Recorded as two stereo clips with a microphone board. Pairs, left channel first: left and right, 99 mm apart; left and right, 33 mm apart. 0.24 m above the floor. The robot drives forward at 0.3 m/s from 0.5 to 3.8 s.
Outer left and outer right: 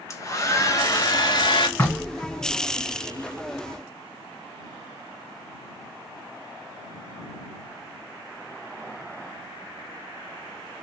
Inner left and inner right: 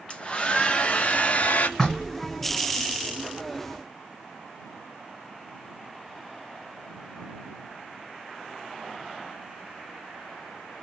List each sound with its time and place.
0.1 s a hair dryer: 35° left (ahead or behind), 0.7 m; by 1.7 s 60° left (ahead or behind), 0.5 m
1.8 s knocking: 20° left (ahead or behind), 1.8 m; by 3.0 s 15° left (ahead or behind), 2 m